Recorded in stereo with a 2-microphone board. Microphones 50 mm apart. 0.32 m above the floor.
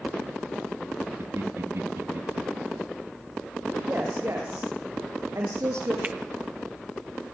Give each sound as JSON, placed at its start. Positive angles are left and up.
{"t": 1.2, "sound": "laughter", "side_deg": -70, "distance_m": 3.5}
{"t": 3.9, "sound": "a woman speaking", "side_deg": -65, "distance_m": 8.5}
{"t": 6.0, "sound": "a finger snap", "side_deg": -35, "distance_m": 1.3}